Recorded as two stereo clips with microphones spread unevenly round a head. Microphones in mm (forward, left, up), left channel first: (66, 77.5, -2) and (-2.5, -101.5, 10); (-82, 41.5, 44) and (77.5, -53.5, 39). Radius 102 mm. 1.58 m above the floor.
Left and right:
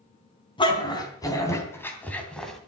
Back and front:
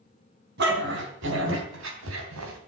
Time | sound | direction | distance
0.6 | a dog barking | 5° left | 3.5 m